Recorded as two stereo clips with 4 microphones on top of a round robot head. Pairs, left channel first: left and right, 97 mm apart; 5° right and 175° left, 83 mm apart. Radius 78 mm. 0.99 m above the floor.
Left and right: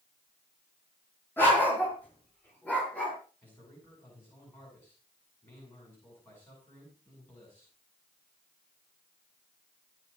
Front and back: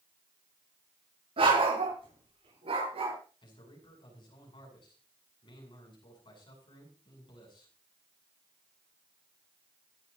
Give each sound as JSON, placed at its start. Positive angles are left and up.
{"t": 1.4, "sound": "a dog barking", "azimuth_deg": 160, "distance_m": 7.5}
{"t": 3.4, "sound": "a man speaking", "azimuth_deg": 15, "distance_m": 8.0}